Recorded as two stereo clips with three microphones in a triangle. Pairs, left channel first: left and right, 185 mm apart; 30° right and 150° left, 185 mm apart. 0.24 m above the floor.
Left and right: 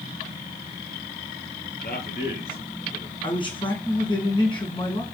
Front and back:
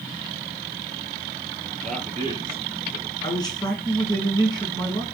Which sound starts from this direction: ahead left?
A man speaking, at 3.2 s.